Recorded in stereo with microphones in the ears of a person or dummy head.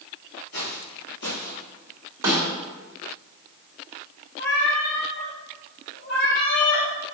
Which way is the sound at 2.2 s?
10° right (ahead or behind).